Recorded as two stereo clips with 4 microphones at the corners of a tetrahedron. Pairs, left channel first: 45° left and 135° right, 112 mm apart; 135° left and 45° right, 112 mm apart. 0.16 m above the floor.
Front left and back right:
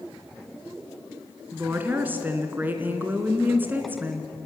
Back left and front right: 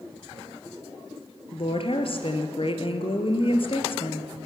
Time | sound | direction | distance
1.5 | a woman speaking | 155° left | 3 m